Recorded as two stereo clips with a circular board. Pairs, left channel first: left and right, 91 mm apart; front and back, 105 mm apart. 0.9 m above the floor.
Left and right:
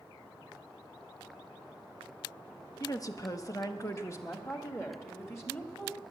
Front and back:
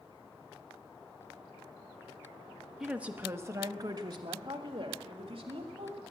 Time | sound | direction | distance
2.8 | a woman speaking | 95° left | 0.8 m